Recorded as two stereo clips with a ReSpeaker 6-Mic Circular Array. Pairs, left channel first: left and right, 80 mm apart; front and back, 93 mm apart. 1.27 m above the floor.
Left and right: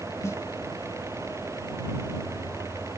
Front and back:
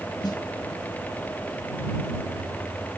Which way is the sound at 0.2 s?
35° left.